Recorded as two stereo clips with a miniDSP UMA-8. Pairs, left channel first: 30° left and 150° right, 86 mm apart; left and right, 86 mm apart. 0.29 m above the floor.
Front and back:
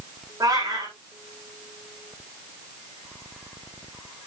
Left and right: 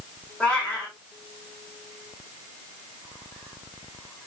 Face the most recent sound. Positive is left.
turn(degrees=170)